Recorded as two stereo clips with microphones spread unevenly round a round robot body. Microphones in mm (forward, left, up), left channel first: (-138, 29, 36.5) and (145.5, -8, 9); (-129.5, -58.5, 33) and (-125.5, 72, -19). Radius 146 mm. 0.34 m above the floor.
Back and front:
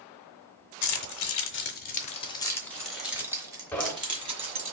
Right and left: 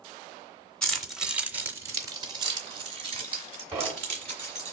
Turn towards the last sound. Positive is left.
turn(degrees=85)